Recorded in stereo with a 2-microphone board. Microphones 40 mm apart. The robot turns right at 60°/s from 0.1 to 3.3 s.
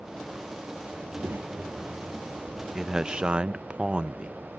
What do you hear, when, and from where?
1.0 s a child speaking: 95° right; by 2.6 s 5° left
2.8 s a man speaking: 160° right; by 4.6 s 130° right